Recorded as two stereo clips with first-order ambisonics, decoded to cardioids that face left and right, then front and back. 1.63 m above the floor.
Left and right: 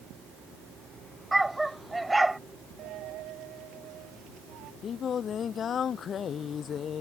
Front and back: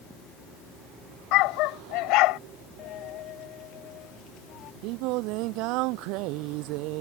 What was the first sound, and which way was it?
A dog barking, 10° right.